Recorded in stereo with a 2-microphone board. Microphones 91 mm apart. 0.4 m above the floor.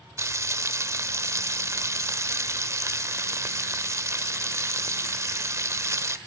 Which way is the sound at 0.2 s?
35° right (ahead or behind).